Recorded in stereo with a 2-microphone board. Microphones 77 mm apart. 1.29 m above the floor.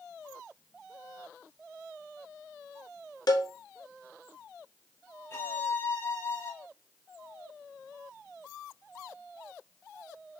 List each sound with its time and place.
3.3 s a cowbell: 55° left (ahead or behind), 1.0 m
5.3 s a violin: 35° left (ahead or behind), 2 m